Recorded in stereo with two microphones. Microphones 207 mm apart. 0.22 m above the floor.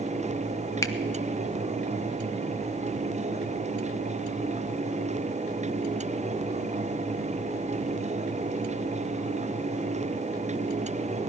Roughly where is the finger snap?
Centre.